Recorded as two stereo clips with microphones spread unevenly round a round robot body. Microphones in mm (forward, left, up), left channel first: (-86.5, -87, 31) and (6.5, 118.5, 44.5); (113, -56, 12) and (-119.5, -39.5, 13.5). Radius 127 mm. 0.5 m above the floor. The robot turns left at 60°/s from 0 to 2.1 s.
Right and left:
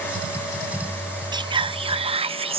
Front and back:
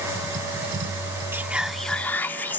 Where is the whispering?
110° left; by 2.6 s 65° left.